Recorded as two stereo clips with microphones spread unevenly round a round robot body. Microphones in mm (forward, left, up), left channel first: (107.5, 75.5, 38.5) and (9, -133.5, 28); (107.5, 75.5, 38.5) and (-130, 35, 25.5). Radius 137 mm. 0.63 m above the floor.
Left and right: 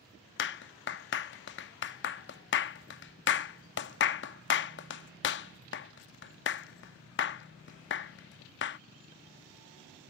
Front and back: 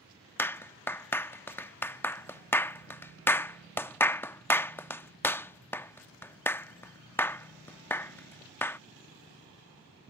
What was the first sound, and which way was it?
A clap, 90° left.